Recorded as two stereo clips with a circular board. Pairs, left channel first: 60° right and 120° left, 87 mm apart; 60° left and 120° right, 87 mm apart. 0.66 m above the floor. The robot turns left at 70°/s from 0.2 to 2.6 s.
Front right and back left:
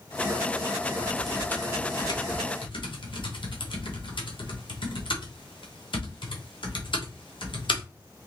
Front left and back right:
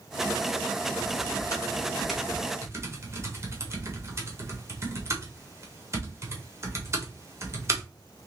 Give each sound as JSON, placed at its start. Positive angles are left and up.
{"t": 1.0, "sound": "typing on a keyboard", "azimuth_deg": 45, "distance_m": 1.1}